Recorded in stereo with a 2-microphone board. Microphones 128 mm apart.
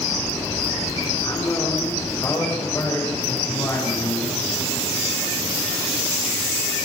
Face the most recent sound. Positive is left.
turn(degrees=20)  # may be behind; listen again after turning